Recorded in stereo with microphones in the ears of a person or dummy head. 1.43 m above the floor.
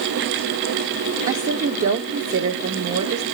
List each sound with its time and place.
1.3 s a woman speaking: 45° right (ahead or behind), 0.6 m